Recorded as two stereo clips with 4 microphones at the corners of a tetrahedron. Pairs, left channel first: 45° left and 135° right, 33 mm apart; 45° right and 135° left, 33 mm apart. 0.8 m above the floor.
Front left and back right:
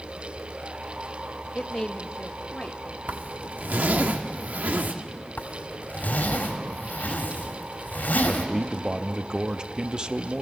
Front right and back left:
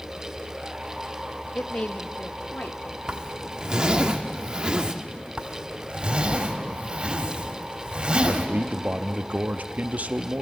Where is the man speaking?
165° left, 0.7 m.